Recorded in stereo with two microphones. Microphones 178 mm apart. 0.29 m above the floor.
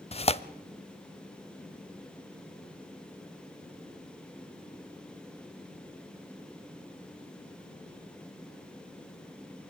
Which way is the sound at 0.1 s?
35° left (ahead or behind).